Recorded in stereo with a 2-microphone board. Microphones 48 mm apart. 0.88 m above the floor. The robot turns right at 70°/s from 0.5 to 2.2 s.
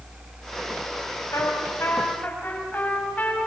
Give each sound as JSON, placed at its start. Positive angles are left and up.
{"t": 1.3, "sound": "a trumpet", "azimuth_deg": 80, "distance_m": 5.0}